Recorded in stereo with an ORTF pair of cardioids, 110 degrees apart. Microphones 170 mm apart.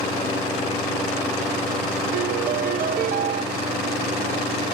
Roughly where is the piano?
Ahead right.